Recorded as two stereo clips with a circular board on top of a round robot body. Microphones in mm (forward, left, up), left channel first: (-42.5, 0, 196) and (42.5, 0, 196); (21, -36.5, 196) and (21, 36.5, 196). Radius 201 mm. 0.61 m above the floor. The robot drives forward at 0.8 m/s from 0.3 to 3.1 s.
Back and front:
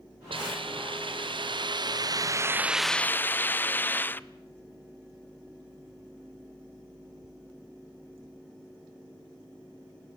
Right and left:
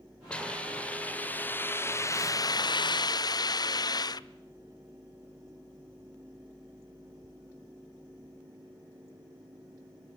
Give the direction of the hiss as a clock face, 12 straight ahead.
12 o'clock.